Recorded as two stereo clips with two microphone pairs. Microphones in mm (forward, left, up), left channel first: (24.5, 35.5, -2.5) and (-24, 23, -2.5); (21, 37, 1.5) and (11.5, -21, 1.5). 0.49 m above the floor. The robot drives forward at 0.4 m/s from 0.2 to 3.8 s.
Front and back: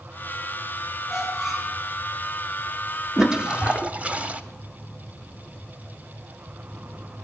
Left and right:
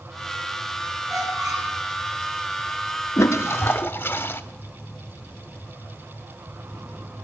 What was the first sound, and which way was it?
A squeak, 75° right.